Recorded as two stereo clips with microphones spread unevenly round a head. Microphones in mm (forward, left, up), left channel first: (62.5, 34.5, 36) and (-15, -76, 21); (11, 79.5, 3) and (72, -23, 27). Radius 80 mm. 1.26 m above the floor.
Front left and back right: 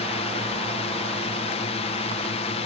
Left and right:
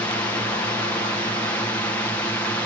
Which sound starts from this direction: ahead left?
A drone, at 0.0 s.